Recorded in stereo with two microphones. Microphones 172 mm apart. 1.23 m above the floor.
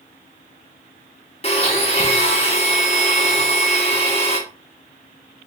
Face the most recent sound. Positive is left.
turn(degrees=40)  # may be behind; listen again after turning